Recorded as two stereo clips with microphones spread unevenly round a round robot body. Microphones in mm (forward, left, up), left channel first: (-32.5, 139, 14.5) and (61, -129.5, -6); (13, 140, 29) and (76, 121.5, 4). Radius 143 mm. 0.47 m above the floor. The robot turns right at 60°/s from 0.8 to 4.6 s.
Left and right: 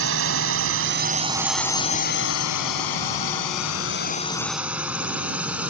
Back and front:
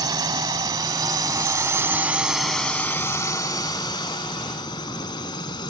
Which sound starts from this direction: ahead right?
A drone, at 0.0 s.